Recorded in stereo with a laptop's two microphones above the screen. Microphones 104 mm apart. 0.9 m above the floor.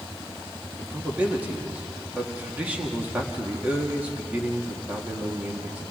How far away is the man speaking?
About 1.8 m.